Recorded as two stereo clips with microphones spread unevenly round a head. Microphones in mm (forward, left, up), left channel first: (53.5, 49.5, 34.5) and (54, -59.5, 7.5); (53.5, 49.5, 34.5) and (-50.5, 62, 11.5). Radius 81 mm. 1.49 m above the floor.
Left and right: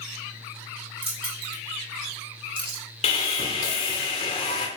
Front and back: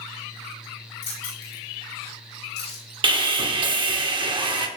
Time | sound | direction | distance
1.0 | keys jangling | 55° right | 4.5 m
3.0 | sawing | 140° left | 1.1 m